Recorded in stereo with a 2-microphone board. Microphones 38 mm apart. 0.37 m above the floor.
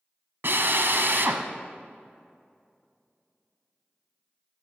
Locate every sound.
0.4 s a drill: 70° right (ahead or behind), 1.0 m